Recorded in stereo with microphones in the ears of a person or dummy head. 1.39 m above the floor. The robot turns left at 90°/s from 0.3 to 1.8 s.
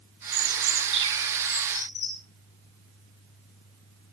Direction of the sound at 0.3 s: 85° right.